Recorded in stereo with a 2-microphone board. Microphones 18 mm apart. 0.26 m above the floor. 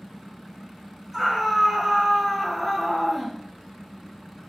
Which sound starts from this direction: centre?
A scream, at 1.1 s.